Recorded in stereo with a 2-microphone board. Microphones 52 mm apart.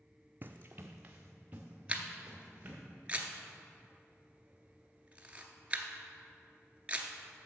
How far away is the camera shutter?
About 0.8 m.